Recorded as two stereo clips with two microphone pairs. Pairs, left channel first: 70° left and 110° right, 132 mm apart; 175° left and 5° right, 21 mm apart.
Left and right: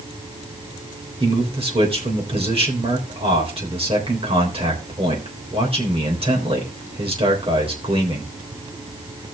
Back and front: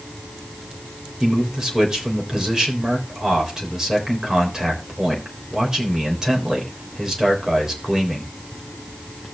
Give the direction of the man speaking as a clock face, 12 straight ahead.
2 o'clock.